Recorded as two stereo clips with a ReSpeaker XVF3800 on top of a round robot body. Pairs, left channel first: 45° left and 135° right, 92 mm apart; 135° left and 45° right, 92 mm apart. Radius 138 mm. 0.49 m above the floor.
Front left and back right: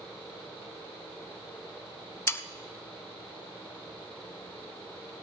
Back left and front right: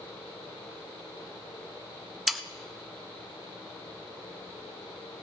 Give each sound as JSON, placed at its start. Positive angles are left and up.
{"t": 2.3, "sound": "sawing", "azimuth_deg": 45, "distance_m": 1.0}